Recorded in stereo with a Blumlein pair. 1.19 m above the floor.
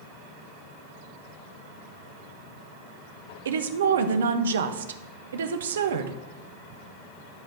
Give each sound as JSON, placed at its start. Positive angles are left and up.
{"t": 3.5, "sound": "a woman speaking", "azimuth_deg": -65, "distance_m": 0.9}